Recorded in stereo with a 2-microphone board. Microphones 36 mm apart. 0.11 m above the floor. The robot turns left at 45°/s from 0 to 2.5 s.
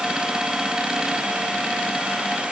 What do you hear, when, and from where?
Only background noise.